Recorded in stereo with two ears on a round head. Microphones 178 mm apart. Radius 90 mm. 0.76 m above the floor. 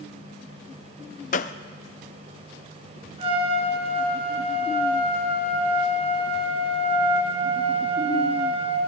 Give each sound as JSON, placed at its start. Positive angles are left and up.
{"t": 1.3, "sound": "a gunshot", "side_deg": 40, "distance_m": 0.5}
{"t": 3.2, "sound": "a trumpet", "side_deg": -30, "distance_m": 2.0}